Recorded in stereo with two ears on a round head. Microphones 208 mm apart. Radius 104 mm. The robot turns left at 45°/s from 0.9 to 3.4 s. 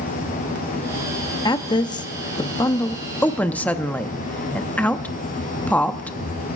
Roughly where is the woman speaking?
Centre.